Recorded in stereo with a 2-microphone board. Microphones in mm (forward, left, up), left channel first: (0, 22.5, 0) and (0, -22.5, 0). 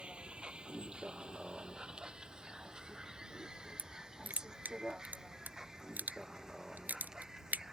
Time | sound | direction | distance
0.0 | a vehicle | 25° right (ahead or behind) | ?
3.8 | crushing | 40° right (ahead or behind) | ?